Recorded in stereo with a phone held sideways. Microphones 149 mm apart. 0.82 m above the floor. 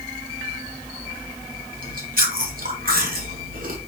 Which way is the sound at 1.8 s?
70° right (ahead or behind).